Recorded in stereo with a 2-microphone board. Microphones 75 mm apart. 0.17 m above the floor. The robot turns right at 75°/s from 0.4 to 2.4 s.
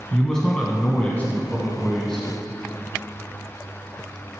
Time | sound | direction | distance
0.1 | a man speaking | 10° left (ahead or behind) | 1.0 m